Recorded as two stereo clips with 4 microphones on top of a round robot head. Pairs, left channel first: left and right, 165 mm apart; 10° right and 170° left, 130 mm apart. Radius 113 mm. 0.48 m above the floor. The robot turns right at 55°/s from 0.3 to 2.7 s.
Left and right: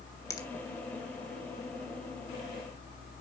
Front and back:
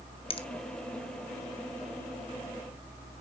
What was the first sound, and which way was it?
A finger snap, 20° left.